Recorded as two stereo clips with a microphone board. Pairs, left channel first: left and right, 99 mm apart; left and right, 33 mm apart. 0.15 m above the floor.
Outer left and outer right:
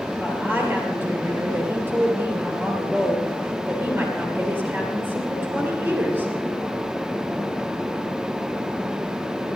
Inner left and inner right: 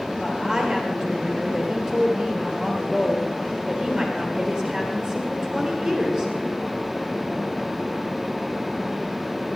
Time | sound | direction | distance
0.2 | a woman speaking | 20° right (ahead or behind) | 3 m